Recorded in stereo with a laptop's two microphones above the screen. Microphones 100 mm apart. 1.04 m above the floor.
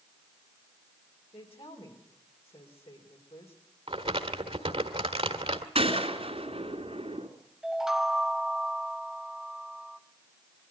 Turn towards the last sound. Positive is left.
turn(degrees=-5)  # may be behind; listen again after turning